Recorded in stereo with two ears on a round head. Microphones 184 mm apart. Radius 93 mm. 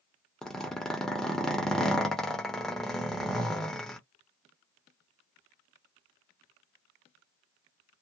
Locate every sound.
0.4 s a zipper: 5° left (ahead or behind), 0.8 m